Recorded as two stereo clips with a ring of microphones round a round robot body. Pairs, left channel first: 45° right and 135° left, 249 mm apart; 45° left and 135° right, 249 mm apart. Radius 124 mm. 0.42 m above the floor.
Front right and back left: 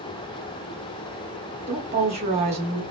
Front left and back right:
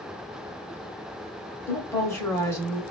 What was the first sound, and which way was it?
A woman speaking, 115° left.